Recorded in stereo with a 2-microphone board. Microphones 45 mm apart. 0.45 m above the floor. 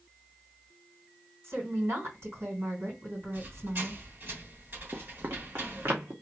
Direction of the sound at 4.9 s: 70° right (ahead or behind).